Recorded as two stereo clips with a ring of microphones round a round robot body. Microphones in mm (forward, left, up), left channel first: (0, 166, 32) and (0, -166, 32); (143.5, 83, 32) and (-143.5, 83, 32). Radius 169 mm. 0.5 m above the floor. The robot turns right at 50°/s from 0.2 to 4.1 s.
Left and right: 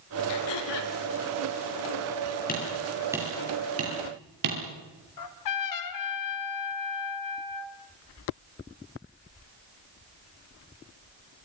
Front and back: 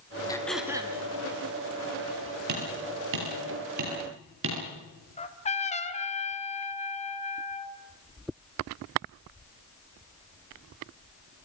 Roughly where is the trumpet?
Ahead left.